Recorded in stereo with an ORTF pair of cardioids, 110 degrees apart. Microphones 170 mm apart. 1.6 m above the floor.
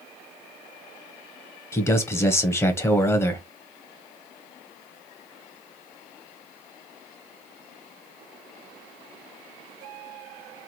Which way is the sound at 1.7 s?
15° left.